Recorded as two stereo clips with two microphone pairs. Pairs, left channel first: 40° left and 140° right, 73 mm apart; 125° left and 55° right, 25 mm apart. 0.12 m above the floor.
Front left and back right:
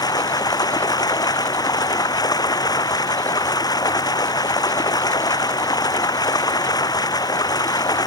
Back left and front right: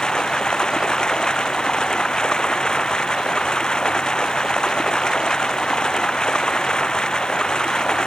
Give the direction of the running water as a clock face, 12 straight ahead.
10 o'clock.